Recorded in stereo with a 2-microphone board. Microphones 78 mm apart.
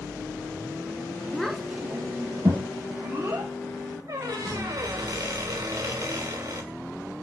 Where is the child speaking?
10° left (ahead or behind), 0.8 m; by 3.5 s 45° right (ahead or behind), 2.5 m.